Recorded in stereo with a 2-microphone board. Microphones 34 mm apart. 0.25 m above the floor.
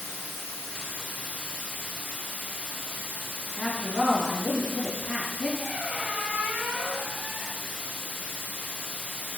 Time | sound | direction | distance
0.0 | running water | 75° left (ahead or behind) | 1.1 m
3.6 | a woman speaking | 40° left (ahead or behind) | 1.8 m
5.6 | a squeak | 20° right (ahead or behind) | 0.8 m